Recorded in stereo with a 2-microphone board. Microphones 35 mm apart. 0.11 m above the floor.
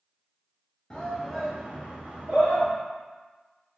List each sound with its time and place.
0.9 s a shout: 20° left (ahead or behind), 1.3 m; by 2.7 s 50° right (ahead or behind), 1.8 m